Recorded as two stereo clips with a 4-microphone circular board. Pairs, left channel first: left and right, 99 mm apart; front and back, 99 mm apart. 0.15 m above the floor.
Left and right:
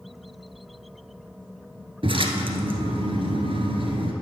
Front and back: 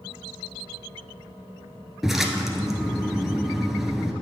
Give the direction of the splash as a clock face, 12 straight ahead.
3 o'clock.